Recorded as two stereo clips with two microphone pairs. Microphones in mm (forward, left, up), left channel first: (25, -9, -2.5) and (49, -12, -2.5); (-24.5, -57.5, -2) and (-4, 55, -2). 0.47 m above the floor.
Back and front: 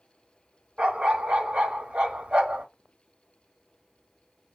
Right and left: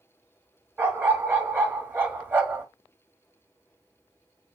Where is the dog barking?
5° left, 0.8 m.